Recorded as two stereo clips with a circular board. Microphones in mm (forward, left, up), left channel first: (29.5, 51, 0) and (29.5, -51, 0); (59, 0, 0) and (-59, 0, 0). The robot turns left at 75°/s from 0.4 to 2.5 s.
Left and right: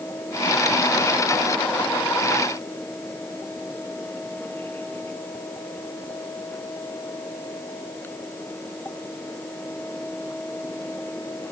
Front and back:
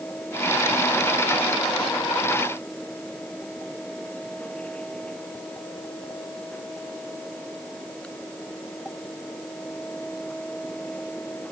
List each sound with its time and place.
Only background noise.